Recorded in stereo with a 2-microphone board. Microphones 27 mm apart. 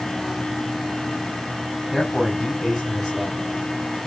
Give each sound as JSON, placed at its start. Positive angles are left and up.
{"t": 1.9, "sound": "a man speaking", "side_deg": 0, "distance_m": 4.5}